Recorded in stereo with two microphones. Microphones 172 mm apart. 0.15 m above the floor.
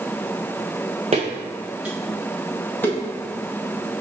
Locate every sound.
1.1 s footsteps: 40° right (ahead or behind), 0.8 m; by 3.0 s 15° left (ahead or behind), 1.7 m